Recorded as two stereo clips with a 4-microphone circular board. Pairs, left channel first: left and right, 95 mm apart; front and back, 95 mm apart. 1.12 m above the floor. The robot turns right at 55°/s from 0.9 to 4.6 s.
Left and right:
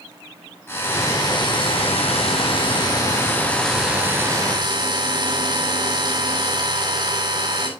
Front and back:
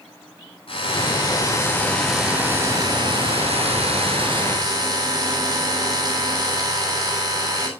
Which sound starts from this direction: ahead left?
A drill, at 0.7 s.